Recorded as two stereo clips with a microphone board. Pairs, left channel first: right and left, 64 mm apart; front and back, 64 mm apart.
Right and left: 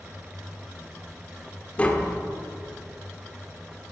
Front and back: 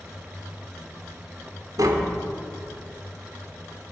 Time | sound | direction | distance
1.8 | tapping | 160° right | 1.3 m